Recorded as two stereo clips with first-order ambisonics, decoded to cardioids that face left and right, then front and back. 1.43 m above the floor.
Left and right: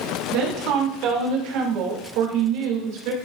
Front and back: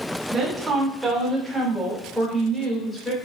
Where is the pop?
No pop in this recording.